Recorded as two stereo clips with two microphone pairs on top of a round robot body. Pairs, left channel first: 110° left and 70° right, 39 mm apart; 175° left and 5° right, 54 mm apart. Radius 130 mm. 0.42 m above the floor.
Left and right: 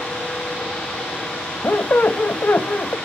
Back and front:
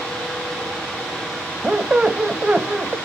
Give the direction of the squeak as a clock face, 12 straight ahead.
10 o'clock.